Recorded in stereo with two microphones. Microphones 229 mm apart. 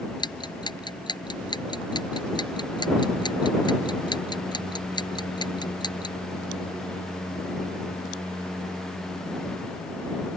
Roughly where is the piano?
No piano in this recording.